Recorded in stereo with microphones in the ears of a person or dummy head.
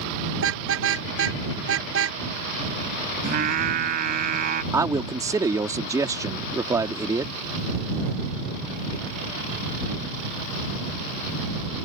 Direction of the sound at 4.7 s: 15° right (ahead or behind).